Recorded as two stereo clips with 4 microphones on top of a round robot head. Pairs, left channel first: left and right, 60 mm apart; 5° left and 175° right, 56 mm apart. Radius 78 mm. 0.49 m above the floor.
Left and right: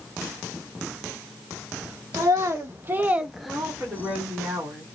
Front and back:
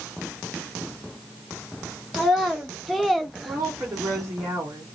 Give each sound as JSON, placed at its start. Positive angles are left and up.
{"t": 2.1, "sound": "a child speaking", "azimuth_deg": -85, "distance_m": 0.9}
{"t": 3.5, "sound": "a woman speaking", "azimuth_deg": -150, "distance_m": 1.7}